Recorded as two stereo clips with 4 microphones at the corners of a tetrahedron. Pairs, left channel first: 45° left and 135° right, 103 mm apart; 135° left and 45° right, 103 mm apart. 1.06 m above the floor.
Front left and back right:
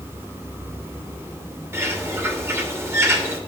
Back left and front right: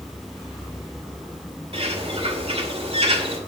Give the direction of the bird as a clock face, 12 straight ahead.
2 o'clock.